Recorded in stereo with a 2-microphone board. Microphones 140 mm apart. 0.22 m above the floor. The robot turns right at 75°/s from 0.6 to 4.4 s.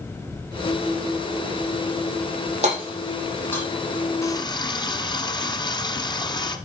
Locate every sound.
2.6 s hammering: 50° right (ahead or behind), 4.5 m; by 3.6 s 25° left (ahead or behind), 4.5 m
4.2 s a running tap: 20° left (ahead or behind), 1.3 m; by 6.6 s 35° left (ahead or behind), 1.3 m